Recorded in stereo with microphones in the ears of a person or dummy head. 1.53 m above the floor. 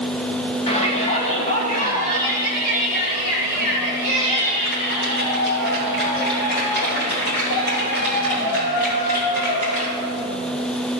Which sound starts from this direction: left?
A shout, at 0.7 s.